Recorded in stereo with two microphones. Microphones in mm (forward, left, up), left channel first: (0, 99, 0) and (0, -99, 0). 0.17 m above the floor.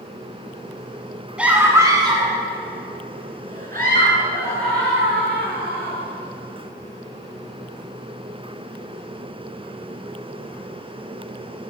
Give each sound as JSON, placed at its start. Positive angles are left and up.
{"t": 1.4, "sound": "a scream", "side_deg": -5, "distance_m": 1.3}